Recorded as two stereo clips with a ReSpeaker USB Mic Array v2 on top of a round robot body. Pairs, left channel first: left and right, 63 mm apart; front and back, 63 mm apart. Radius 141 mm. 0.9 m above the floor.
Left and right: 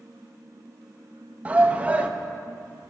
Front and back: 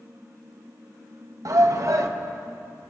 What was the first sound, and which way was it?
A shout, 160° right.